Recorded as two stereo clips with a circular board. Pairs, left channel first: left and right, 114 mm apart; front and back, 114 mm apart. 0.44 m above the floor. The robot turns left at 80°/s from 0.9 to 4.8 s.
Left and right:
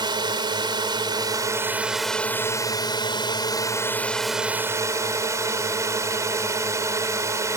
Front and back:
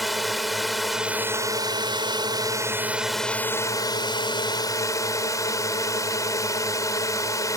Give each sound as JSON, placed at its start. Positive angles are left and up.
{"t": 0.0, "sound": "a drone", "azimuth_deg": -90}